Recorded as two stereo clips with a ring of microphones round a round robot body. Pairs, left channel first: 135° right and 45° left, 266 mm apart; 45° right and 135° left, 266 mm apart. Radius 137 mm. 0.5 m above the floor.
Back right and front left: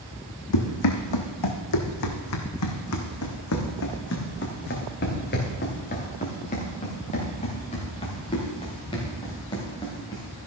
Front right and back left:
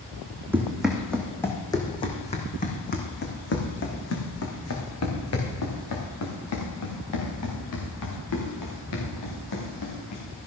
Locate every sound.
0.5 s running footsteps: 140° right, 1.9 m; by 10.2 s 60° right, 5.5 m